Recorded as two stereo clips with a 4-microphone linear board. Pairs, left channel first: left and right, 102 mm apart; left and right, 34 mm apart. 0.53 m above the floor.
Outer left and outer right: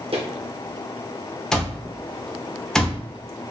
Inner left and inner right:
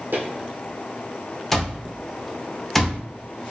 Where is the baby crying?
I don't hear a baby crying.